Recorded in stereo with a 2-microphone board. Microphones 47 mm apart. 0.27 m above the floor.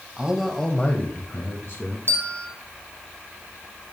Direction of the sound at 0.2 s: 20° right (ahead or behind).